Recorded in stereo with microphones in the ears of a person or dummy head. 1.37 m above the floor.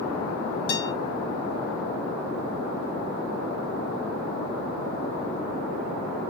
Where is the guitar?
65° left (ahead or behind), 3.5 m.